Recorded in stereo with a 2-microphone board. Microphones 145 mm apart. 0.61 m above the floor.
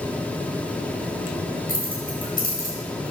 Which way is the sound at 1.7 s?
85° left.